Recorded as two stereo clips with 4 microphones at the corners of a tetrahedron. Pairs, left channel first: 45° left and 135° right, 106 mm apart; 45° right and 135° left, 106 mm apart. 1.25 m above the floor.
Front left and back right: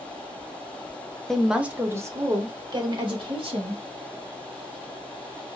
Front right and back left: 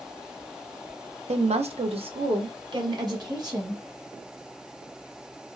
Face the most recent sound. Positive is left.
turn(degrees=-170)